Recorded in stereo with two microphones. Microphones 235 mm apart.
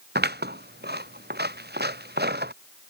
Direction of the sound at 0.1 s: 45° right (ahead or behind).